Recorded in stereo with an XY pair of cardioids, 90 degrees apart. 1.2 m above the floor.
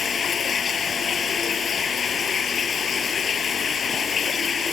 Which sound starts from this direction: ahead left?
Running water, at 0.0 s.